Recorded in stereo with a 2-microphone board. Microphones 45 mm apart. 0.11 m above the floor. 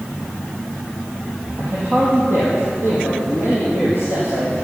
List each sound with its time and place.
1.6 s a man speaking: 60° right (ahead or behind), 4.5 m